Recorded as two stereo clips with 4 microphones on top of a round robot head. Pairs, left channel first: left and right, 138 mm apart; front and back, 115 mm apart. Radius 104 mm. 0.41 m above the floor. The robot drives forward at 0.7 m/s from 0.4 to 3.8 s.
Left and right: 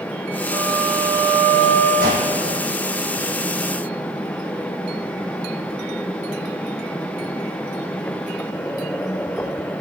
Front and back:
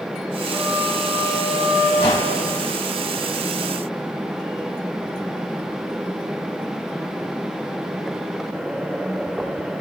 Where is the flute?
115° right, 2.5 m; by 1.9 s 130° right, 3 m.